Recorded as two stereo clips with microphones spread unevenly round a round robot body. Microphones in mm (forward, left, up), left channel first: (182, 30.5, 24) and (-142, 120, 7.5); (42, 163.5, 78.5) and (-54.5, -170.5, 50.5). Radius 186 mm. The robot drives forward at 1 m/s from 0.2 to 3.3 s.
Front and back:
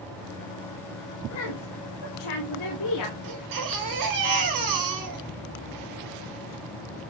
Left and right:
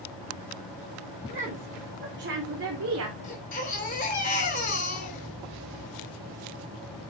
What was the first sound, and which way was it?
A woman speaking, 35° right.